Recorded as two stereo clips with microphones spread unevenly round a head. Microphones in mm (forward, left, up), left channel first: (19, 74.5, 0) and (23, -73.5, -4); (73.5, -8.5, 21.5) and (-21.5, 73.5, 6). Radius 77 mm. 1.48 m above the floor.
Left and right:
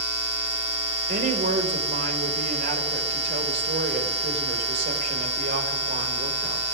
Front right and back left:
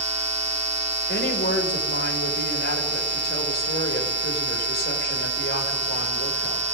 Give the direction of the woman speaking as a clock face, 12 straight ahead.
2 o'clock.